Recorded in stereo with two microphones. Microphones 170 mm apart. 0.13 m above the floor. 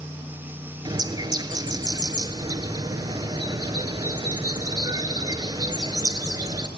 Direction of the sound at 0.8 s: 25° right (ahead or behind).